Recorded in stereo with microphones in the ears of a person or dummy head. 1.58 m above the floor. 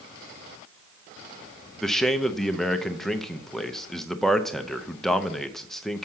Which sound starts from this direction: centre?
A man speaking, at 1.8 s.